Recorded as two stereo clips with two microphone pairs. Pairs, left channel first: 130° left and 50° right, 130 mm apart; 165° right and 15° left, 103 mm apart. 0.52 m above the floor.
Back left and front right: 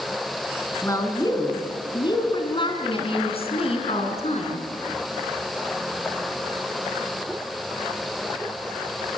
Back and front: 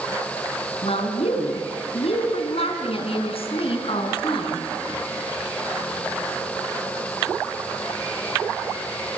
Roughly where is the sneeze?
No sneeze in this recording.